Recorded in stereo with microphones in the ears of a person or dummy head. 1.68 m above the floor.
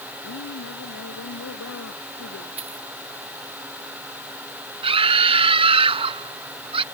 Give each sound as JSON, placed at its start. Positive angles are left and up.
{"t": 0.2, "sound": "a woman speaking", "side_deg": 75}
{"t": 2.6, "sound": "a dropped coin", "side_deg": -35}
{"t": 4.8, "sound": "a scream", "side_deg": -30}